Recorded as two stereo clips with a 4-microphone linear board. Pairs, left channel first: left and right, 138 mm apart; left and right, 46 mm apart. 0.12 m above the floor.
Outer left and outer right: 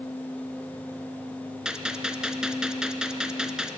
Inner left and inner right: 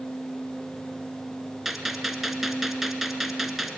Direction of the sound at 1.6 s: 5° right (ahead or behind).